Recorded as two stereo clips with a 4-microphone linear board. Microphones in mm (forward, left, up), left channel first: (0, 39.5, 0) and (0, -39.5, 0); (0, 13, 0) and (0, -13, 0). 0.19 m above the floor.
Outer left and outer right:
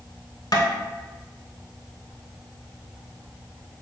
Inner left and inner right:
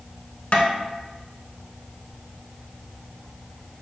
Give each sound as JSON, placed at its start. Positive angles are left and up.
{"t": 0.5, "sound": "tapping", "side_deg": 55, "distance_m": 0.7}